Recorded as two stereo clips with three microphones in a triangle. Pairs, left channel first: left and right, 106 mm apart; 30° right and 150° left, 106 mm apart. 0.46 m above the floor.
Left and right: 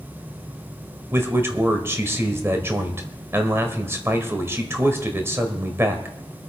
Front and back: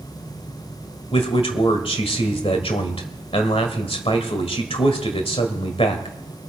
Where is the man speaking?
25° right, 1.6 m.